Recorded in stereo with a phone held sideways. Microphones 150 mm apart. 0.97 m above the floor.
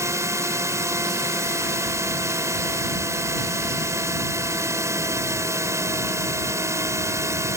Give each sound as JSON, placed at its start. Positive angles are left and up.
{"t": 0.0, "sound": "a drone", "side_deg": -20}